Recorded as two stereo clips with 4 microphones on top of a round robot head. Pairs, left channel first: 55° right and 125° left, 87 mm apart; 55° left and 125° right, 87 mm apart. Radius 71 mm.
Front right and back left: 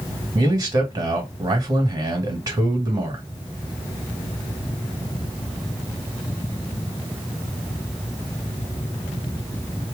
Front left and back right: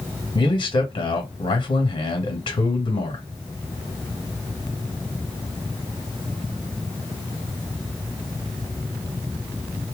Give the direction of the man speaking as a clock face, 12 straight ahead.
9 o'clock.